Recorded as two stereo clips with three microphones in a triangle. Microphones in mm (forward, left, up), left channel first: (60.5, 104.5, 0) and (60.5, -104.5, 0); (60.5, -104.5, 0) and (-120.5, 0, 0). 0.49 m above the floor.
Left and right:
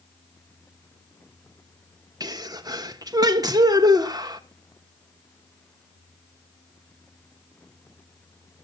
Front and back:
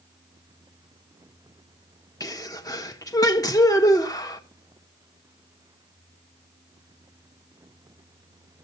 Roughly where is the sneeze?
Ahead right.